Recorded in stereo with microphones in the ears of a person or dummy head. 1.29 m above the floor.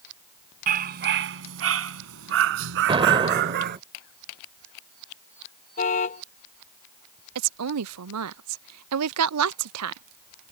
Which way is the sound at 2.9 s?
30° right (ahead or behind).